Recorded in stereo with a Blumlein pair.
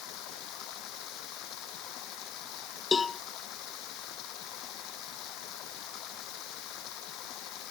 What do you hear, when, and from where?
0.0 s running water: 40° left
2.9 s a cowbell: 15° left